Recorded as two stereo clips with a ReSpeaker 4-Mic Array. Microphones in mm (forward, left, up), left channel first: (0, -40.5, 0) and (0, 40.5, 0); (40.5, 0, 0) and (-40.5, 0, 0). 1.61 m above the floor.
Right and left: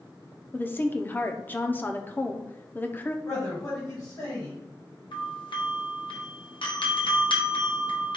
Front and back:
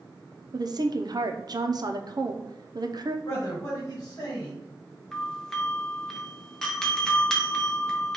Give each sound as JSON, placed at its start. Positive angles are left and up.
{"t": 0.5, "sound": "a woman speaking", "azimuth_deg": -155, "distance_m": 0.5}
{"t": 3.2, "sound": "a man speaking", "azimuth_deg": -50, "distance_m": 1.6}
{"t": 5.1, "sound": "a doorbell", "azimuth_deg": -85, "distance_m": 0.9}